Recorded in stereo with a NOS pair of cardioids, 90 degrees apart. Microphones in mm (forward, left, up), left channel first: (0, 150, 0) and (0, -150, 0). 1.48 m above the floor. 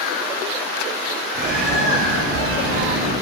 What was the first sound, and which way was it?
A bird, 45° right.